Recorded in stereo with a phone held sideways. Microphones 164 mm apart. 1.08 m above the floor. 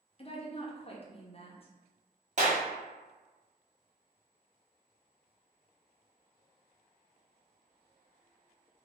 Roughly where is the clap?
Right.